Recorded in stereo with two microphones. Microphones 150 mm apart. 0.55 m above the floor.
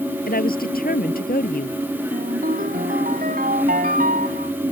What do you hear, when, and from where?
0.3 s a woman speaking: 75° left (ahead or behind)
2.1 s a ringtone: 70° right (ahead or behind)